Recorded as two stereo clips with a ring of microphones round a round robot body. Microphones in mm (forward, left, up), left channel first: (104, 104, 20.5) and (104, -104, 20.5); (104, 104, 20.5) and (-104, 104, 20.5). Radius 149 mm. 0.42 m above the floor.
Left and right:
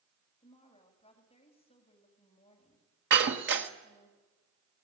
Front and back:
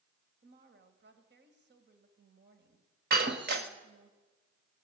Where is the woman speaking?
155° left, 3 m.